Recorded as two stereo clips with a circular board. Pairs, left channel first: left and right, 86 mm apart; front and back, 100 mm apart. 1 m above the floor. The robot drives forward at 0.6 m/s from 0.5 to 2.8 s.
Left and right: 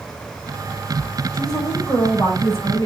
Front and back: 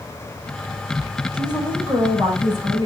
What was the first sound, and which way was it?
A woman speaking, 135° left.